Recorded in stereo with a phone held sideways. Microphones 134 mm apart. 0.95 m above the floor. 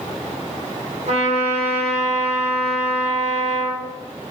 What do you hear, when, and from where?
1.1 s a trumpet: 55° right (ahead or behind), 3 m